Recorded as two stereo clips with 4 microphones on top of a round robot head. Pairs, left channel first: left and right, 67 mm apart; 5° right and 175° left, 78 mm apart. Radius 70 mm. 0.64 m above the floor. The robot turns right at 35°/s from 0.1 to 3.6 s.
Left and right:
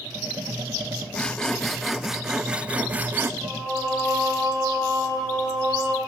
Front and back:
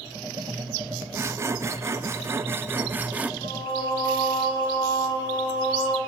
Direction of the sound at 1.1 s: 155° left.